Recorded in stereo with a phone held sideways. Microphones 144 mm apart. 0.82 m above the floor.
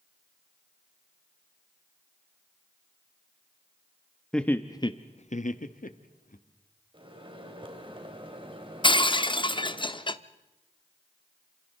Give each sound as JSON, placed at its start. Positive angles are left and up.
{"t": 4.3, "sound": "laughter", "side_deg": 5, "distance_m": 1.0}
{"t": 6.9, "sound": "a microwave", "side_deg": -35, "distance_m": 3.0}
{"t": 8.8, "sound": "breaking glass", "side_deg": 35, "distance_m": 0.6}